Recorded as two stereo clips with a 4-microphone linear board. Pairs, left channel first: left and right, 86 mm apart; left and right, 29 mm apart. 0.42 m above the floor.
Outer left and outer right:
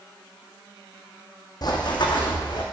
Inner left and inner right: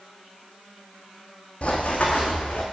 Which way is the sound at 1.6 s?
55° left (ahead or behind).